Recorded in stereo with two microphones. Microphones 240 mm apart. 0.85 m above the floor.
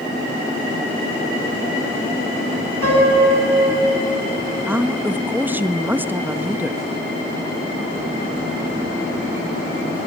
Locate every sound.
2.8 s a piano: 75° right (ahead or behind), 8.5 m
4.7 s a woman speaking: 10° right (ahead or behind), 0.9 m